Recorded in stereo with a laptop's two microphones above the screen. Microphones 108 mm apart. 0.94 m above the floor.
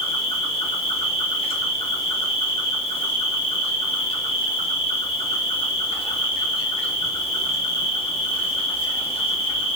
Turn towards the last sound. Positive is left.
turn(degrees=55)  # may be behind; listen again after turning